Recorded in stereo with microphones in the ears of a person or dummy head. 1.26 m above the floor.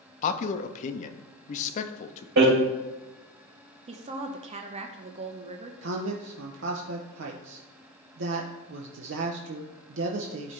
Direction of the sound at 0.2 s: 40° left (ahead or behind).